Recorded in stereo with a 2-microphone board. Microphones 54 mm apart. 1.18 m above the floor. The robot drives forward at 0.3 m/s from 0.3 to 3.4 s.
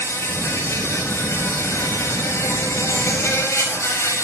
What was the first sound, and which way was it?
An insect, 60° left (ahead or behind).